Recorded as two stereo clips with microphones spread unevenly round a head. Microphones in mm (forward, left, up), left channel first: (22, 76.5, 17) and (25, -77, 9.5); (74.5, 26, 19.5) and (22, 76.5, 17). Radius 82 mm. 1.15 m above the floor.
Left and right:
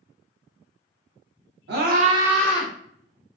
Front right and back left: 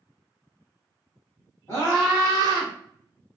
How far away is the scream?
About 0.9 m.